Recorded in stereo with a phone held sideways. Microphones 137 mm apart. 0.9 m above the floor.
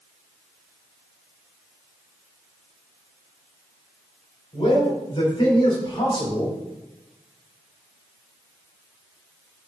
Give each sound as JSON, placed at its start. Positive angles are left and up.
{"t": 4.5, "sound": "a man speaking", "side_deg": 40, "distance_m": 4.0}